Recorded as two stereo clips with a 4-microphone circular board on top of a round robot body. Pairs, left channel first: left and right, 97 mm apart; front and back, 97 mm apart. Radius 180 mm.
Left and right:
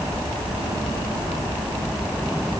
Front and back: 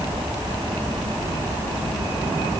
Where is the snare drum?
No snare drum in this recording.